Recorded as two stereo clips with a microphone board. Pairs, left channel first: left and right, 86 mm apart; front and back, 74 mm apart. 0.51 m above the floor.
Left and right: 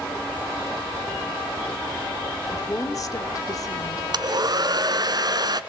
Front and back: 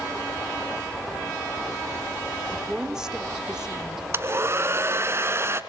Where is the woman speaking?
105° left, 1.7 m.